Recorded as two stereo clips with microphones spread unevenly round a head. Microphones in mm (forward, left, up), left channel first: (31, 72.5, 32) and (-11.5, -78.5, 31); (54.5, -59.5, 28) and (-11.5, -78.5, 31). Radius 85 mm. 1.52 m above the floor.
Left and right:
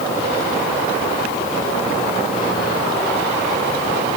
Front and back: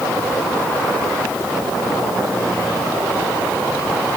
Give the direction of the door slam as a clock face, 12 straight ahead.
I don't hear a door slam.